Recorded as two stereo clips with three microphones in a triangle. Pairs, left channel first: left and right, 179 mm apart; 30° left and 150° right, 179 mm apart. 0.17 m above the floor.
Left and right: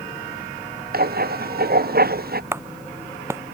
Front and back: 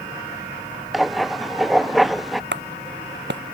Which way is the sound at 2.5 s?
165° right.